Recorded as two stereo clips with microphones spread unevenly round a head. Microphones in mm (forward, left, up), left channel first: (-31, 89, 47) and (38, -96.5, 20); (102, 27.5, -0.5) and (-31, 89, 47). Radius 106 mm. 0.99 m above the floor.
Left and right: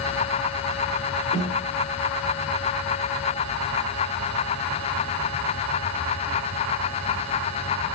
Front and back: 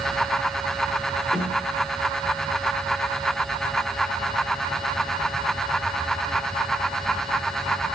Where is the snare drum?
70° left, 3.5 m.